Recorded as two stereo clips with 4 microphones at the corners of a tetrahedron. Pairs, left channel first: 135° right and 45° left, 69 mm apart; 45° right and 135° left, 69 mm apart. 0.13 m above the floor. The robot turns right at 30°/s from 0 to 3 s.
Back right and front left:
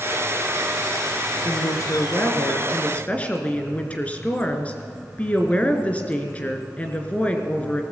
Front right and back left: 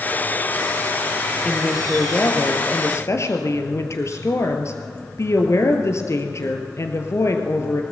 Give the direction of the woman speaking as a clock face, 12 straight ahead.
4 o'clock.